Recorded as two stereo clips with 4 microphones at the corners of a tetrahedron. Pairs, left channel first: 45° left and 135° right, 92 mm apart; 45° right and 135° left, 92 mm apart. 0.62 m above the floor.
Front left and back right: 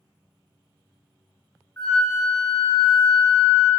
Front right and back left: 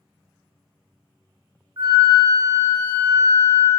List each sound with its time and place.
1.8 s a flute: 95° left, 1.9 m